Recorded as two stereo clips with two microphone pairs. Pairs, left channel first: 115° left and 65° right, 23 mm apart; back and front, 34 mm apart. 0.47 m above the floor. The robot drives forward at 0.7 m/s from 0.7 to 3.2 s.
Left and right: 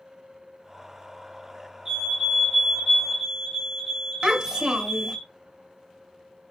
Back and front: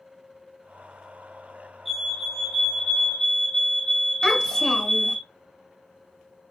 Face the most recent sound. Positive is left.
turn(degrees=-110)